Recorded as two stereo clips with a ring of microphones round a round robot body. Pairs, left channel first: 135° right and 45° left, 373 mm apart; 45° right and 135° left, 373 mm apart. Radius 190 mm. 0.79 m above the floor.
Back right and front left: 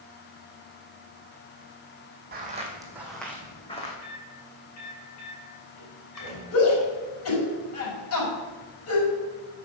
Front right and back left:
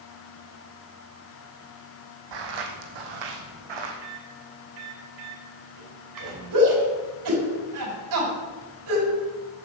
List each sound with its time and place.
2.3 s footsteps: 110° left, 1.8 m; by 3.9 s 155° left, 2.5 m
4.0 s a microwave: 175° left, 5.5 m
6.5 s a shout: 175° left, 5.5 m